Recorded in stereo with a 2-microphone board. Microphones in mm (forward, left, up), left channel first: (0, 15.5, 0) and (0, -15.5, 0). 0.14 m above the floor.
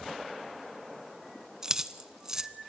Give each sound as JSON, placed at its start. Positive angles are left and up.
{"t": 1.6, "sound": "keys jangling", "side_deg": -20, "distance_m": 0.7}